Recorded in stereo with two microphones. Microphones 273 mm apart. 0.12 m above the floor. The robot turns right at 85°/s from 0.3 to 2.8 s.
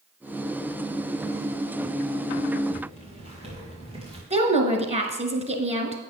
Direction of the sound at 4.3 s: 25° right (ahead or behind).